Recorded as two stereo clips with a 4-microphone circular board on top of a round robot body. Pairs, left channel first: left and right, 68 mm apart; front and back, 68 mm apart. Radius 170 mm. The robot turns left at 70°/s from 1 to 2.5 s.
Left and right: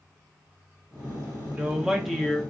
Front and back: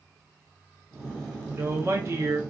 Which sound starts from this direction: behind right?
A woman speaking, at 1.5 s.